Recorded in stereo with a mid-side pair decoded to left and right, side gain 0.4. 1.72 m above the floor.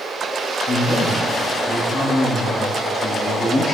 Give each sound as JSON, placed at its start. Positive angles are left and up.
{"t": 0.7, "sound": "a man speaking", "azimuth_deg": 70, "distance_m": 5.5}